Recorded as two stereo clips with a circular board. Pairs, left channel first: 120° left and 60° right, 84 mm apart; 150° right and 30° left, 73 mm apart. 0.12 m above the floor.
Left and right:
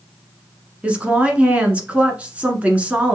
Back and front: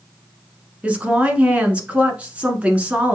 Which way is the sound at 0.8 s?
15° right.